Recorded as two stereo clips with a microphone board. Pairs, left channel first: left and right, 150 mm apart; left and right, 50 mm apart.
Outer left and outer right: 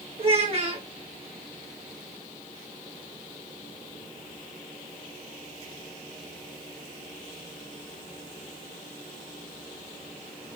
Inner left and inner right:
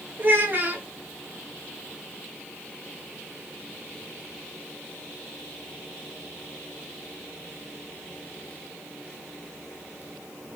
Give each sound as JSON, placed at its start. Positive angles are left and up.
{"t": 0.2, "sound": "a child speaking", "side_deg": -40, "distance_m": 1.2}